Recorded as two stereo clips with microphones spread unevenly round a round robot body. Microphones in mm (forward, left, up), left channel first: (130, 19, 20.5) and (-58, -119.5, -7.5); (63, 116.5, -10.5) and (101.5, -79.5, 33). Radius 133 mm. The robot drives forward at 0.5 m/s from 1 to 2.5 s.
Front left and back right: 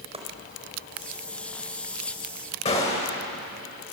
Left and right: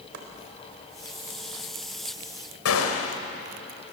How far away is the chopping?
About 4 m.